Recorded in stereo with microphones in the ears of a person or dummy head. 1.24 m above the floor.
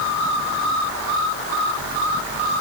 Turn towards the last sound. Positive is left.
No sound to turn to.